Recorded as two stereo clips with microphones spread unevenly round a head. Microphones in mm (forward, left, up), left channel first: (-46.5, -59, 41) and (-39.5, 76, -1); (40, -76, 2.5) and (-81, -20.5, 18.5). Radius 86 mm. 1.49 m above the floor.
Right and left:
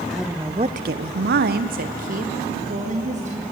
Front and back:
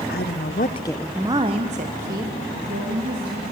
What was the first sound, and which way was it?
A woman speaking, 5° right.